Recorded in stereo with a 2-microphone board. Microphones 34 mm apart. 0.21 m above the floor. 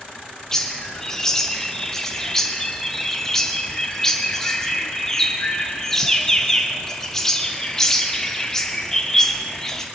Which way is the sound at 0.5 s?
15° left (ahead or behind).